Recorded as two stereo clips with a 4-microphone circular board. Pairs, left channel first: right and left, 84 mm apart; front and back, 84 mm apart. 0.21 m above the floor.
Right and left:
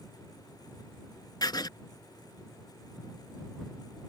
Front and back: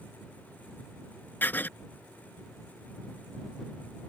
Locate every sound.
1.4 s writing: 65° right